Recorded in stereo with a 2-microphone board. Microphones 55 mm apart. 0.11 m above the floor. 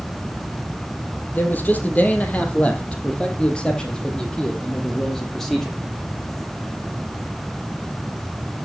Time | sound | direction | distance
1.3 | a man speaking | 35° left (ahead or behind) | 3.5 m